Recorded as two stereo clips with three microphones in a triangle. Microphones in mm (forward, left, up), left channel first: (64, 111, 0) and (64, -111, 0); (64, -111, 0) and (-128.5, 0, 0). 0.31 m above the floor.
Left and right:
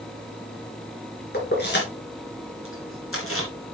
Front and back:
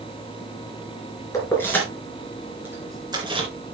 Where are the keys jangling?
45° left, 3.5 m; by 3.5 s 85° left, 3 m.